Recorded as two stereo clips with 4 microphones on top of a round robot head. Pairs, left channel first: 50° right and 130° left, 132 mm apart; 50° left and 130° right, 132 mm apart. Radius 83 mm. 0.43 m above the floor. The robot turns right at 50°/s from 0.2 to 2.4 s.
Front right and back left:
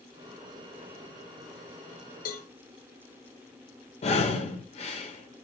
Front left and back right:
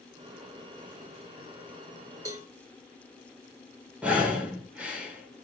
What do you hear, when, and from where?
2.2 s a cowbell: 65° right, 2.5 m; by 2.5 s 55° right, 2.5 m
4.0 s breathing: 50° right, 2 m